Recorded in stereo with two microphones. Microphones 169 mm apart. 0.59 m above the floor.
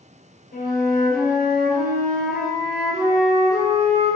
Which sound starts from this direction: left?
A flute, at 0.5 s.